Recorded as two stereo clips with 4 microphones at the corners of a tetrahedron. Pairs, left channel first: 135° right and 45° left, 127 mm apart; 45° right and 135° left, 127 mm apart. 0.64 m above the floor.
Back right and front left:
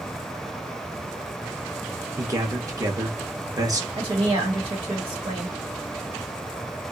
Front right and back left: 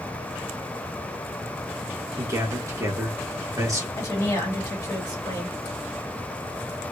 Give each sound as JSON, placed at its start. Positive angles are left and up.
{"t": 2.2, "sound": "a man speaking", "azimuth_deg": 90, "distance_m": 0.9}
{"t": 4.0, "sound": "a woman speaking", "azimuth_deg": 15, "distance_m": 1.7}